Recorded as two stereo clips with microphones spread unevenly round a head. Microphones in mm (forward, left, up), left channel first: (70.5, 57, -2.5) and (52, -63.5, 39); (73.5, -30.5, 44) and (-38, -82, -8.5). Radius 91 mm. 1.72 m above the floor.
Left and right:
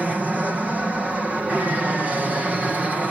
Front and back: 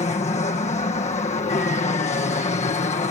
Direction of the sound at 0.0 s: 10° right.